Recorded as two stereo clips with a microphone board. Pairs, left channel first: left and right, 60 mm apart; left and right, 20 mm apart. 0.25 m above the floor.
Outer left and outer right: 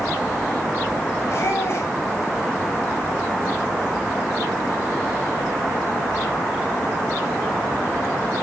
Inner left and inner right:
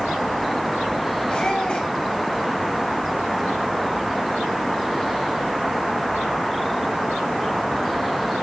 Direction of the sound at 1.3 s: 45° left (ahead or behind).